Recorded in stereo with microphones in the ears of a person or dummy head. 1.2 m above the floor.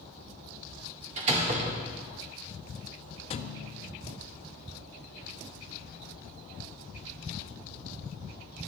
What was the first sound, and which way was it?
A door slam, 30° right (ahead or behind).